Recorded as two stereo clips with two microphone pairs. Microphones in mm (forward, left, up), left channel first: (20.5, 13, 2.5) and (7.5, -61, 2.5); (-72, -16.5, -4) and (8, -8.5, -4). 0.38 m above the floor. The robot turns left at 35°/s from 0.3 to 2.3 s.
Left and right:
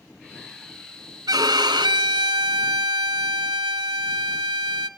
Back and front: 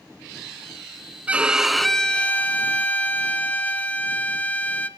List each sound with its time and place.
1.3 s a violin: 70° right, 1.0 m; by 4.9 s 105° right, 1.0 m